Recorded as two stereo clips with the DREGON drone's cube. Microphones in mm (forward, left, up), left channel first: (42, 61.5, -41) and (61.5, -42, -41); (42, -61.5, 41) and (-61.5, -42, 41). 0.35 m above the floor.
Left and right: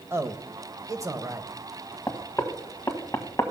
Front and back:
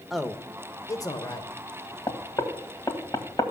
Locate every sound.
0.1 s a man speaking: 105° right, 0.9 m; by 1.5 s 35° right, 1.1 m
2.1 s knocking: 40° left, 1.4 m